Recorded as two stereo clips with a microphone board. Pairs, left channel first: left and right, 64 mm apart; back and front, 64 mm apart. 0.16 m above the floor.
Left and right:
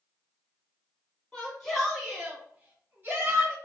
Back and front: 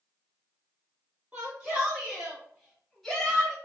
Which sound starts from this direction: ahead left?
A shout, at 1.3 s.